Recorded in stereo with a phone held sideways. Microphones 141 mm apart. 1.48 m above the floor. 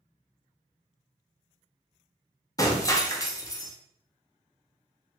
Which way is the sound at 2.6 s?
25° left (ahead or behind).